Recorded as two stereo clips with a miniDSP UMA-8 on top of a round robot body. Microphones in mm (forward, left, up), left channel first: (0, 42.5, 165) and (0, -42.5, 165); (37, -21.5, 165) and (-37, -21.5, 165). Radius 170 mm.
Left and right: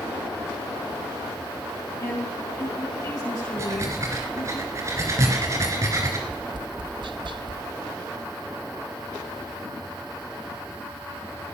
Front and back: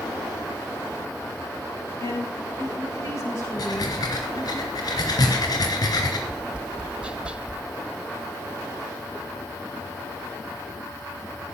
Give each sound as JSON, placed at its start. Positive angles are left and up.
{"t": 2.0, "sound": "a woman speaking", "azimuth_deg": 40, "distance_m": 8.0}
{"t": 3.6, "sound": "breathing", "azimuth_deg": -35, "distance_m": 2.5}
{"t": 6.3, "sound": "tapping", "azimuth_deg": -105, "distance_m": 1.1}